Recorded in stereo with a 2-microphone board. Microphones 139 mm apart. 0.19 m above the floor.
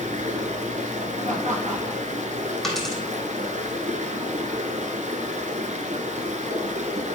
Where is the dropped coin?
Centre (ahead or behind), 2.5 m.